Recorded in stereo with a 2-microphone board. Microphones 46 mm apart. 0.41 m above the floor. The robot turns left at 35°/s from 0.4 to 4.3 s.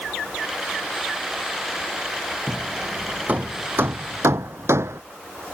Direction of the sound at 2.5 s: 5° right (ahead or behind).